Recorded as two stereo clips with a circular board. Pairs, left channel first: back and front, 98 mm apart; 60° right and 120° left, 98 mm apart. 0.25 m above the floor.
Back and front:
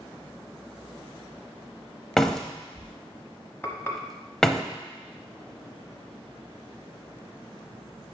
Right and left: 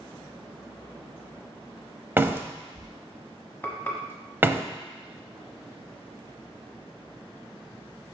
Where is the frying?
120° right, 1.1 m.